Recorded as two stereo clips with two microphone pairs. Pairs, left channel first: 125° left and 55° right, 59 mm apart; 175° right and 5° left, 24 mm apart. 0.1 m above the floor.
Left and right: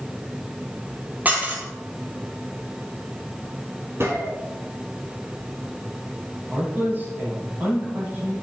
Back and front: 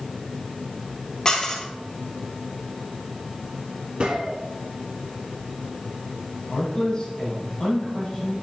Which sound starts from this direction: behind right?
A man speaking, at 6.5 s.